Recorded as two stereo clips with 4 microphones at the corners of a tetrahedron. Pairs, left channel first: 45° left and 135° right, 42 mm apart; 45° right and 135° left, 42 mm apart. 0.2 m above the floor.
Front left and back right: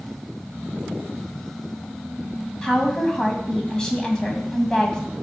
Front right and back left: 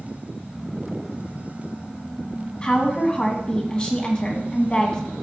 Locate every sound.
2.6 s a woman speaking: 15° right, 1.8 m